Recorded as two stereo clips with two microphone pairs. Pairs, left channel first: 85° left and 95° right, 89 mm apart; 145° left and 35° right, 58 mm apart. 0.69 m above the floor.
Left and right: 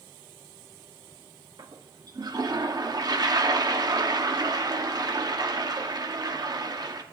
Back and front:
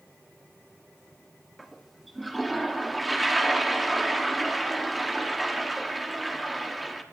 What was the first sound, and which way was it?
A toilet flushing, 125° right.